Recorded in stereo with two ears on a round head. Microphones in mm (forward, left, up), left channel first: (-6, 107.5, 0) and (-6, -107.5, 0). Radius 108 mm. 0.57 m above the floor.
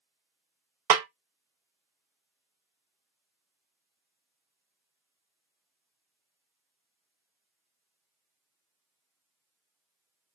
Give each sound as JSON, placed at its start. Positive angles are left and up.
{"t": 0.9, "sound": "a snare drum", "side_deg": -70, "distance_m": 0.6}